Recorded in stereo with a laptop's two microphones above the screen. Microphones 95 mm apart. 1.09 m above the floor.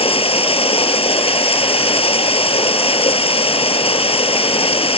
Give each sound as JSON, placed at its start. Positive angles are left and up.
{"t": 0.0, "sound": "running water", "side_deg": 85}